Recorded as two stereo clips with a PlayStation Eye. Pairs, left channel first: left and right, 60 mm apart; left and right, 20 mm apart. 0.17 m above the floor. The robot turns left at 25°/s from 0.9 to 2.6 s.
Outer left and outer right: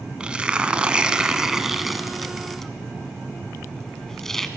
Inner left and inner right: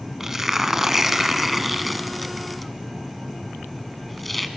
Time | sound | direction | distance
0.2 | tearing paper | 15° right (ahead or behind) | 1.0 m